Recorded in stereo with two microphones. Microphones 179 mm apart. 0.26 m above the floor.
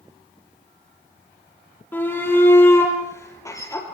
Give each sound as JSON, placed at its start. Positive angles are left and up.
{"t": 1.9, "sound": "a shout", "side_deg": 10, "distance_m": 6.5}